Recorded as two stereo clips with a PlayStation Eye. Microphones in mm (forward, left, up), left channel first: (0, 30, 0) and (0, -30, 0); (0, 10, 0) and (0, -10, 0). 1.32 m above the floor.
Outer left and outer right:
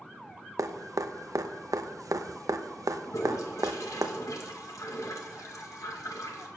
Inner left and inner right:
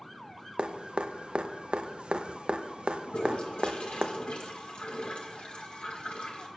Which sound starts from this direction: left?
A toilet flushing, at 3.1 s.